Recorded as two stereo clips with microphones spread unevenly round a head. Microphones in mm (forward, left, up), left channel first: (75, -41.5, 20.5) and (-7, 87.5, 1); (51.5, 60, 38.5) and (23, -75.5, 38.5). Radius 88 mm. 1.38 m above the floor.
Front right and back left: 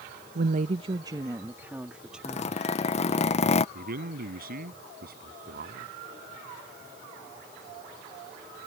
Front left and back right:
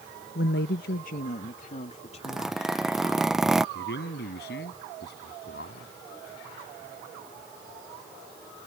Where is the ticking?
No ticking in this recording.